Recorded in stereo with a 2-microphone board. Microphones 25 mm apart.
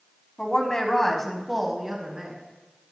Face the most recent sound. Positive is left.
turn(degrees=-30)  # may be behind; listen again after turning